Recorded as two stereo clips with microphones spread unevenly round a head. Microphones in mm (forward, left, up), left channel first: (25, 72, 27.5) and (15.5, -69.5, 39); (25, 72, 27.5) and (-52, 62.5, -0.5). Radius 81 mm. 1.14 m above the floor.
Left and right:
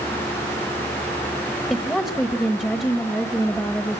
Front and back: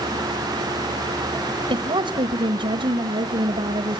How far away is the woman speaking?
About 1.2 m.